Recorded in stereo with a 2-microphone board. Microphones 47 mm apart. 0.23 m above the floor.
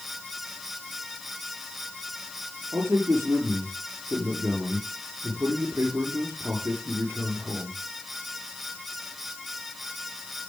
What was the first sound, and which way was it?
A man speaking, 75° right (ahead or behind).